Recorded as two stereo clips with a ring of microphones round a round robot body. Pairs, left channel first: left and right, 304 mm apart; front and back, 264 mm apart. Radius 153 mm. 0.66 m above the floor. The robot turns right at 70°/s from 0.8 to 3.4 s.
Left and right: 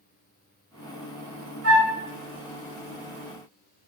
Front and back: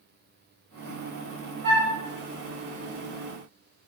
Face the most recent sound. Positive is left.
turn(degrees=-10)